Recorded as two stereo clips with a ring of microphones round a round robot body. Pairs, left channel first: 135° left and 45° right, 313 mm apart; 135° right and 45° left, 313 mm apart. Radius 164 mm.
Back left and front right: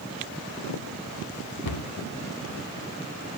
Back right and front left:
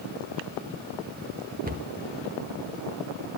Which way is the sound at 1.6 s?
110° left.